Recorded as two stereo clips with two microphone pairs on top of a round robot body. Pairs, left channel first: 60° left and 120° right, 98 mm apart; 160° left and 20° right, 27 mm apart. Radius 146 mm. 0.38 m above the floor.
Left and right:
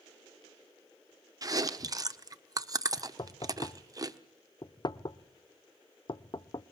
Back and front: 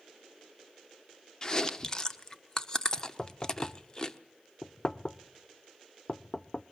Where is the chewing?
145° right, 1.3 m.